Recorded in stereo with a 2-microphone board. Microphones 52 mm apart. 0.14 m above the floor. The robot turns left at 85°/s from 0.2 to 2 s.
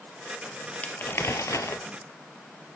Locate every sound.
0.8 s crumpling: 155° left, 0.6 m; by 1.8 s 70° left, 0.6 m